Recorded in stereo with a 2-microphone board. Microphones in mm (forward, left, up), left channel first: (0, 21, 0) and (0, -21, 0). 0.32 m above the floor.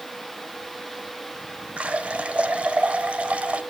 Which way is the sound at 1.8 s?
30° right (ahead or behind).